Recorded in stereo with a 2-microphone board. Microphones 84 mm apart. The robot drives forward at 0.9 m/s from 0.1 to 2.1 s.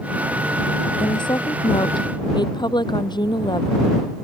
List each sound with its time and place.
1.0 s a woman speaking: 65° left (ahead or behind)